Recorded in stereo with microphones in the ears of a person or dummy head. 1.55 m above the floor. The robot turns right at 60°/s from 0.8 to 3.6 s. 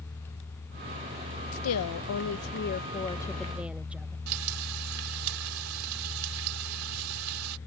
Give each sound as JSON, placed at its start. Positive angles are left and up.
{"t": 1.5, "sound": "a woman speaking", "azimuth_deg": 65}
{"t": 4.3, "sound": "frying", "side_deg": -85}